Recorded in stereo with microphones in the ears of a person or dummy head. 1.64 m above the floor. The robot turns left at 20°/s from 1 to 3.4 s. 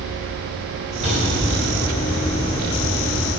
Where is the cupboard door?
30° right (ahead or behind), 3.5 m; by 1.8 s 15° right (ahead or behind), 3.5 m.